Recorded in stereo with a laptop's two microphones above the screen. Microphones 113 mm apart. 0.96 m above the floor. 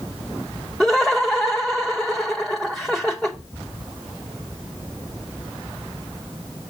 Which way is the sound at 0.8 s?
5° left (ahead or behind).